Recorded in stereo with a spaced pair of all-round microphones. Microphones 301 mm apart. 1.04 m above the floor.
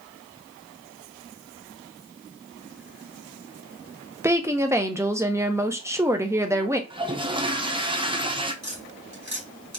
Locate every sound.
4.2 s a woman speaking: 10° right (ahead or behind), 0.7 m
6.9 s a toilet flushing: 15° right (ahead or behind), 0.6 m
8.6 s tapping: 60° right (ahead or behind), 2 m